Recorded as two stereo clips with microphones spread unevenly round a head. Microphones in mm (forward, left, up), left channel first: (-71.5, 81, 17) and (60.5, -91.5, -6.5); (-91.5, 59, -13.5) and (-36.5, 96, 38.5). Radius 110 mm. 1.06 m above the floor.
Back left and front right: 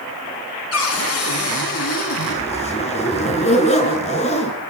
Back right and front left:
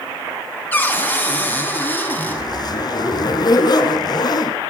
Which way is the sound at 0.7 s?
150° left.